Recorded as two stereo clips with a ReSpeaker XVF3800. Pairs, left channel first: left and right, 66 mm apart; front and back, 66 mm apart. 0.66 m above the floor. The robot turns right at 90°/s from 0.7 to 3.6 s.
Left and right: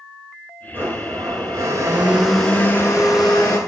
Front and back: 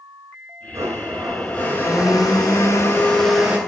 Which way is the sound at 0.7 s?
145° right.